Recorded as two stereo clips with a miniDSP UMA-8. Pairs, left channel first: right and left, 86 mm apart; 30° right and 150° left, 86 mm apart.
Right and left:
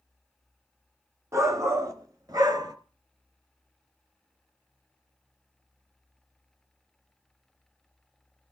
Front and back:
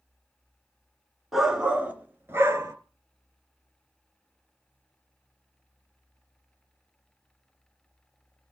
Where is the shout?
65° left, 1.4 m; by 2.8 s 110° left, 1.7 m.